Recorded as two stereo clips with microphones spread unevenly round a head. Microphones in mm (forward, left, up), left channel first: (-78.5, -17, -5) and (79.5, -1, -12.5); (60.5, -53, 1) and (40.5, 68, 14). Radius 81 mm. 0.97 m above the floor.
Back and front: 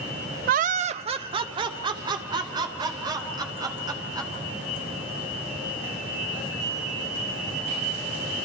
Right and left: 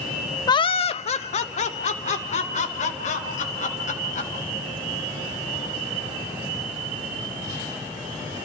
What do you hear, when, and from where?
0.5 s laughter: 25° right, 0.5 m; by 4.3 s 60° right, 5 m